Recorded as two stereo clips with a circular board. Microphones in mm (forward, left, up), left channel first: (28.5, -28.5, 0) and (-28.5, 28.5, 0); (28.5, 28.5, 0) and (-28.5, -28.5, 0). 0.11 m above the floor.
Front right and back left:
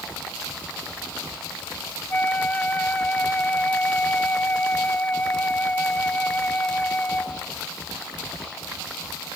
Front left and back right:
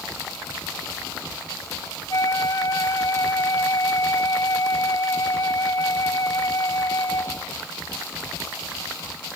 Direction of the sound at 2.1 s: 20° left.